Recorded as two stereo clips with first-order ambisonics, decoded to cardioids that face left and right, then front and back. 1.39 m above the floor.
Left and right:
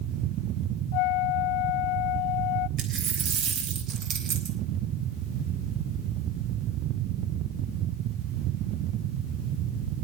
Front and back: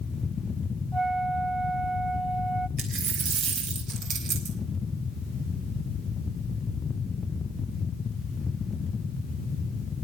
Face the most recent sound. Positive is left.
turn(degrees=-135)